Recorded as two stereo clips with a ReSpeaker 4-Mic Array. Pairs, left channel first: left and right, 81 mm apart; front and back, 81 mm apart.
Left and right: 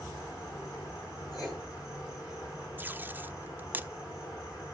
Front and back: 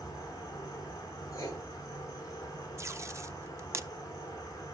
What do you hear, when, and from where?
0.0 s an insect: 45° left, 5.5 m
1.3 s writing: 50° left, 9.5 m
2.8 s tape being pulled: 145° right, 0.5 m